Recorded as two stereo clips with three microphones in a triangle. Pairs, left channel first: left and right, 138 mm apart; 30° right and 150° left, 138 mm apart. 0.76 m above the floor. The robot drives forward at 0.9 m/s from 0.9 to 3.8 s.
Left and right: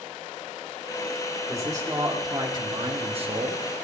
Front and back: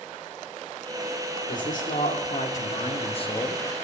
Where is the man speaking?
25° right, 2.5 m; by 3.6 s 85° right, 1.2 m.